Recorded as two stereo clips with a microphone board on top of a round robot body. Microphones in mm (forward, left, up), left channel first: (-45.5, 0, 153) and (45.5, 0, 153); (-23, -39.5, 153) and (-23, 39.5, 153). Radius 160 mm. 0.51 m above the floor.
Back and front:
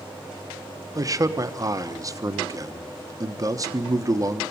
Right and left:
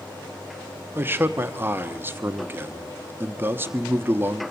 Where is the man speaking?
35° left, 1.3 m.